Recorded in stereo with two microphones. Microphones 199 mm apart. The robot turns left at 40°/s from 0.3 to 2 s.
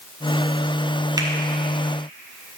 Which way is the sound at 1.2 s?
20° right (ahead or behind).